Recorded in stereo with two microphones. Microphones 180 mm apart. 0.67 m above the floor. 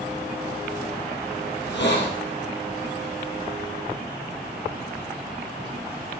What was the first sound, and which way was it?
A hiss, 85° left.